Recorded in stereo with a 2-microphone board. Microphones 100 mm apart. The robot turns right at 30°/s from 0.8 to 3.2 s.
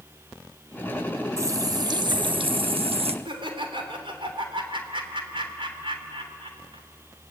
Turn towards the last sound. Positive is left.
turn(degrees=-60)  # may be behind; listen again after turning